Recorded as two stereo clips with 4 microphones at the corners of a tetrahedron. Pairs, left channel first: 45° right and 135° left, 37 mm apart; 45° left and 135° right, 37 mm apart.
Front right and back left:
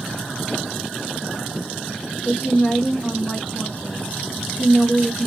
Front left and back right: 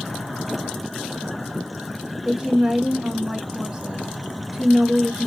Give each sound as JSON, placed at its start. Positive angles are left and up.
{"t": 2.2, "sound": "a woman speaking", "azimuth_deg": -70, "distance_m": 1.9}